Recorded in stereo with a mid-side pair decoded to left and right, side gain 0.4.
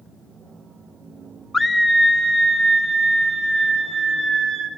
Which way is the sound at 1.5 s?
25° left.